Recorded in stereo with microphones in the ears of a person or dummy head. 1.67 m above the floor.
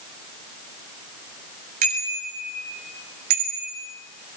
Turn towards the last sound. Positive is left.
turn(degrees=-50)  # may be behind; listen again after turning